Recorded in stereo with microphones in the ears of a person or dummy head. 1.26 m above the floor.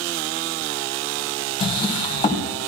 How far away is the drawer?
About 2 m.